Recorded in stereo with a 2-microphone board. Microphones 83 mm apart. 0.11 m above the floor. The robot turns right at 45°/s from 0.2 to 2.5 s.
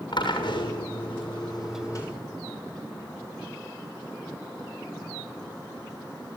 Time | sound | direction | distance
0.1 | a drill | 65° left | 7.5 m